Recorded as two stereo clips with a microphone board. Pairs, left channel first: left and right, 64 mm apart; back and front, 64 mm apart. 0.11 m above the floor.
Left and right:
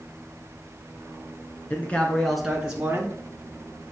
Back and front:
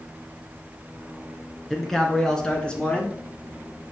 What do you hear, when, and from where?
1.7 s a man speaking: 90° left, 1.5 m; by 3.2 s 120° right, 1.6 m